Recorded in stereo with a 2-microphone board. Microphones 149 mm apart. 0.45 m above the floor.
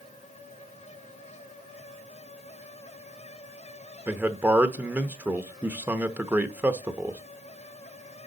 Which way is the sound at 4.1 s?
10° right (ahead or behind).